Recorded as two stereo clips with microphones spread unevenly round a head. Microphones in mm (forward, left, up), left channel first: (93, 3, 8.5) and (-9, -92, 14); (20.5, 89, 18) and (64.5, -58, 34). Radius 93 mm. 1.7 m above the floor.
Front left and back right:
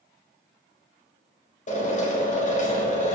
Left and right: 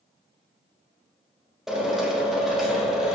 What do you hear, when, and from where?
1.7 s a drill: 15° left, 3.5 m